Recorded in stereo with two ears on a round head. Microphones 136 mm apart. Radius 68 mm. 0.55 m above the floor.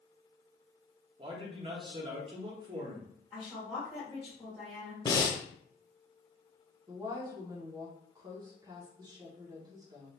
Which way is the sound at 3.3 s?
10° left (ahead or behind).